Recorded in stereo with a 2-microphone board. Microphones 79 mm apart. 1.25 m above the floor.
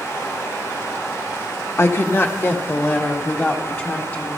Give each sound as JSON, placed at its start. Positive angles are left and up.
{"t": 1.8, "sound": "a woman speaking", "side_deg": 35, "distance_m": 1.1}